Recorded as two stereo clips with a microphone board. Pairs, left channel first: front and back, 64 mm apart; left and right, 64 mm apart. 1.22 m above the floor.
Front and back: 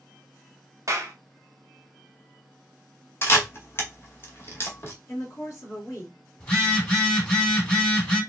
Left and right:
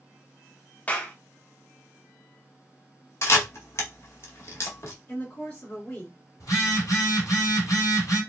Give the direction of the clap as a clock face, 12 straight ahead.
7 o'clock.